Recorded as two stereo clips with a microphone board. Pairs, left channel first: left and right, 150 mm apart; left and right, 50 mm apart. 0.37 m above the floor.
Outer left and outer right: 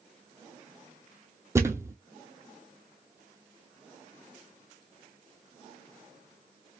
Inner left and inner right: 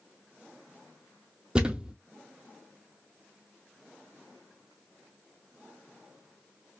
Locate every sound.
1.6 s a thud: 20° right (ahead or behind), 0.6 m